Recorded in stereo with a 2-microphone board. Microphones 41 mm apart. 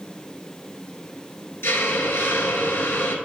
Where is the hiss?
70° left (ahead or behind), 1.0 m.